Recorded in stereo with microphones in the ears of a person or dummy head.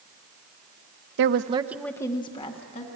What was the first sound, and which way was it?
A woman speaking, 65° right (ahead or behind).